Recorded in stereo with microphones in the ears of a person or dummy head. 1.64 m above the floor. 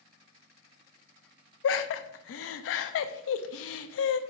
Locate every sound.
1.6 s laughter: 70° left (ahead or behind), 0.6 m